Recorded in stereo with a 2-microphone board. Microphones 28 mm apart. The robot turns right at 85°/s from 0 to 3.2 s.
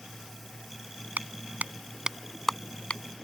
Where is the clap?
75° right (ahead or behind); by 3.3 s 65° left (ahead or behind).